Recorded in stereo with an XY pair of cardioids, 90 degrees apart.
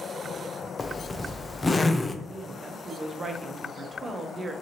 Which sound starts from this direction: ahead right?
A woman speaking, at 2.2 s.